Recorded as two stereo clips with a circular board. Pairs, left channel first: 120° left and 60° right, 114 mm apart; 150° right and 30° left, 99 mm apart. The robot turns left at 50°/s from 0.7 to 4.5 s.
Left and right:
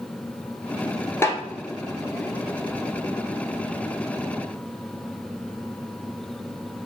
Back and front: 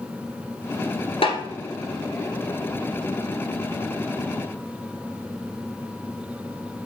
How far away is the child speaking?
I don't hear a child speaking.